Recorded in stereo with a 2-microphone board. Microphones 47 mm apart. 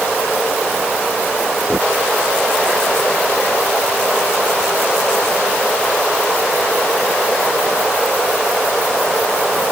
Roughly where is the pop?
No pop in this recording.